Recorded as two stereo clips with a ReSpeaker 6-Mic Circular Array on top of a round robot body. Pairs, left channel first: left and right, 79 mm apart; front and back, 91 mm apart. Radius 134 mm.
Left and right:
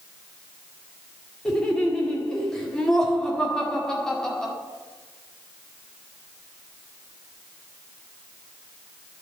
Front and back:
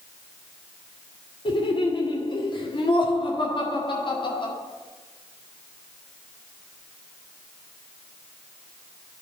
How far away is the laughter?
About 2 m.